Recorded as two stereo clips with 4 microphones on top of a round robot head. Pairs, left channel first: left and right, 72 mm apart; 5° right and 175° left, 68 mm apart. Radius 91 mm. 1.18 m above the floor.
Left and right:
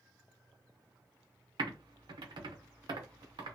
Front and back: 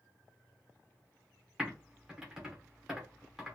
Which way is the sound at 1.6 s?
105° right.